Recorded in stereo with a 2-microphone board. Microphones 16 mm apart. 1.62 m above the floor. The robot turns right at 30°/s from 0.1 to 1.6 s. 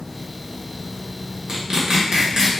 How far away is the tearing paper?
About 1.0 m.